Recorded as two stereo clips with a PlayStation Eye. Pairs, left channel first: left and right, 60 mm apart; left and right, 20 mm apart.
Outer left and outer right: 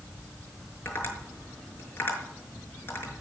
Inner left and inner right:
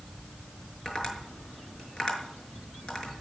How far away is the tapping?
About 6 m.